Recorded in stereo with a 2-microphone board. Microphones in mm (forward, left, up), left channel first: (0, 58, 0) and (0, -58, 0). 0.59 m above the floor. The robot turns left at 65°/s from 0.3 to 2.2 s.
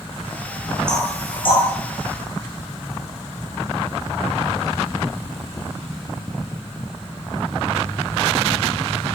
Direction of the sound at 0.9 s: 5° left (ahead or behind).